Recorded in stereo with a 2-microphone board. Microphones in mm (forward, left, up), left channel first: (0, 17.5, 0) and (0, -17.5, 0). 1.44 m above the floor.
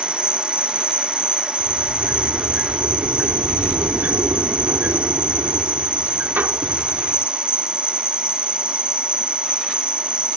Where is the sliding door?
75° right (ahead or behind).